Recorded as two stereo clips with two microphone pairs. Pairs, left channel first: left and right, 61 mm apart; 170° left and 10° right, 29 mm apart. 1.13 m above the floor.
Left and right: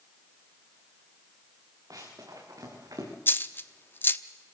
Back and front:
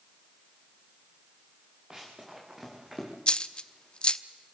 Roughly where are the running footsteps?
Right.